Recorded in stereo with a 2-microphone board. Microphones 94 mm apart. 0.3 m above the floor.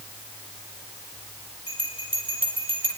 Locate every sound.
1.7 s a bell: 80° left, 4 m